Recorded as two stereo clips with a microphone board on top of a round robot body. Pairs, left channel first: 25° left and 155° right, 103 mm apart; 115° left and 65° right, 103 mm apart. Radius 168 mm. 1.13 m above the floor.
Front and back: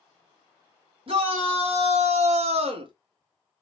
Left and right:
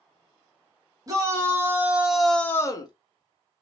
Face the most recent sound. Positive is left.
turn(degrees=160)